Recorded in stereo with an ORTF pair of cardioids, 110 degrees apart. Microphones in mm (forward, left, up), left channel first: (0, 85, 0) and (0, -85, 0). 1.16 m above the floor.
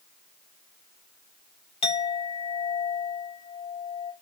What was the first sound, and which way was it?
A clink, 35° left.